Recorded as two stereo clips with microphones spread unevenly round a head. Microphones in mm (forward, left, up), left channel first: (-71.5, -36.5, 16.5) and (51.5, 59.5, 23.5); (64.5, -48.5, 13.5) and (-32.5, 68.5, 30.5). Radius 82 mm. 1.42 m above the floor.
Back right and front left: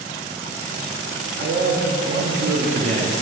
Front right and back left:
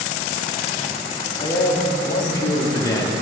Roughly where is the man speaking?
Ahead.